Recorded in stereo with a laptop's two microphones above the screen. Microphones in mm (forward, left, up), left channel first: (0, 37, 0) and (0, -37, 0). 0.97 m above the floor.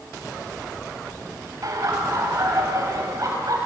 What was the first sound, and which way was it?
Laughter, 50° right (ahead or behind).